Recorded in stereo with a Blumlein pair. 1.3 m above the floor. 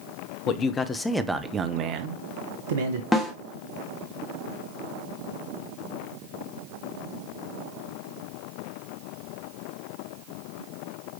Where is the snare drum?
10° left, 1.3 m.